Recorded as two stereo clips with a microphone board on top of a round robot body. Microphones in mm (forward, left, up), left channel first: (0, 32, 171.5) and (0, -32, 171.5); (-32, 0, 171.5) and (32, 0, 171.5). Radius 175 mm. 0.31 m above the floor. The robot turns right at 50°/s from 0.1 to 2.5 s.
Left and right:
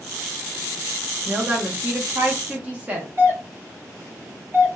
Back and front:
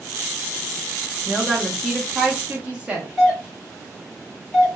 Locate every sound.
1.3 s a woman speaking: 110° right, 0.9 m; by 3.1 s 50° right, 0.9 m
3.2 s a doorbell: 100° right, 1.9 m